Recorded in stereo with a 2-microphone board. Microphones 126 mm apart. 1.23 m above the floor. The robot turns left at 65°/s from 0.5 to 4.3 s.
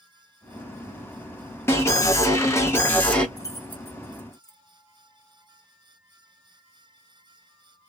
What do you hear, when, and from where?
1.7 s an alarm: 20° left (ahead or behind), 0.9 m; by 3.3 s 10° left (ahead or behind), 0.9 m
3.4 s keys jangling: 30° left (ahead or behind), 0.7 m; by 4.6 s 15° right (ahead or behind), 0.7 m